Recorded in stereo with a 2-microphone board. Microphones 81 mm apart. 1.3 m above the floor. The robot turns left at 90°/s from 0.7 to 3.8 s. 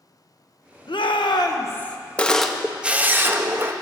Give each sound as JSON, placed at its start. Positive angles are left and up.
{"t": 0.9, "sound": "a shout", "azimuth_deg": 110, "distance_m": 0.9}
{"t": 2.2, "sound": "a camera shutter", "side_deg": 15, "distance_m": 0.6}